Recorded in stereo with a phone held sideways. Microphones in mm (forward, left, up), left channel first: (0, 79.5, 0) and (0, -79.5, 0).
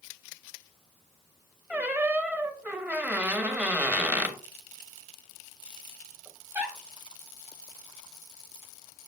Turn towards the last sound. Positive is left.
turn(degrees=-10)  # may be behind; listen again after turning